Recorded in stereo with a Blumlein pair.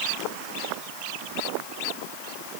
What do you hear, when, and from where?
Only background noise.